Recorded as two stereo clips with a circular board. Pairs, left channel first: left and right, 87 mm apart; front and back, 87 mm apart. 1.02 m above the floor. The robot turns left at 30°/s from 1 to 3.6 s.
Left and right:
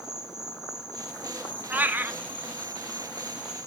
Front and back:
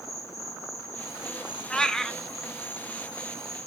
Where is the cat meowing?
65° right, 0.6 m; by 2.2 s 80° right, 0.6 m.